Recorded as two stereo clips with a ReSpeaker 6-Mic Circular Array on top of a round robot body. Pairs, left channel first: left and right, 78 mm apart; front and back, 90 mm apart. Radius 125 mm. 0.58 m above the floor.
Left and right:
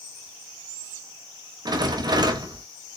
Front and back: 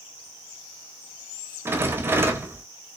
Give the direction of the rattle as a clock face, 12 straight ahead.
4 o'clock.